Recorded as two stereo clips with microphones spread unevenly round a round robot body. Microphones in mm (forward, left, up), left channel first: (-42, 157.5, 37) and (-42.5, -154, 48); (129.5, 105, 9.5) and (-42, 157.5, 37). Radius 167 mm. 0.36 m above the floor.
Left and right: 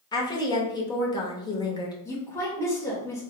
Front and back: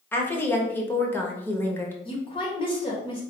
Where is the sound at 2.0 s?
15° left, 1.2 m.